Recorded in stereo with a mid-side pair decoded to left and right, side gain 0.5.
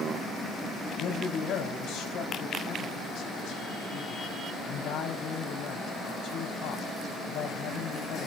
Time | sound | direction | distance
1.0 | a man speaking | 70° left | 5 m